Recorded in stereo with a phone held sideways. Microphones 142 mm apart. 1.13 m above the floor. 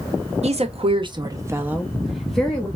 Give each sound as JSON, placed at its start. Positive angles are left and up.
{"t": 0.4, "sound": "a woman speaking", "side_deg": -55, "distance_m": 0.7}